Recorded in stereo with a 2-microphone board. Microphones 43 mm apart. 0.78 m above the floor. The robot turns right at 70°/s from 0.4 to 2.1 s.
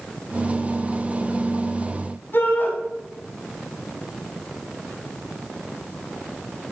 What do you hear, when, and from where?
2.3 s a shout: 60° left (ahead or behind), 7 m